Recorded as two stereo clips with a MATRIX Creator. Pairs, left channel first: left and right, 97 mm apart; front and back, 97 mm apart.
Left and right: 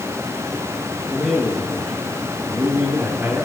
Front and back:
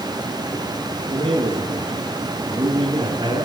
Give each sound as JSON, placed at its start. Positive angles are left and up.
{"t": 1.1, "sound": "a man speaking", "azimuth_deg": 175, "distance_m": 4.0}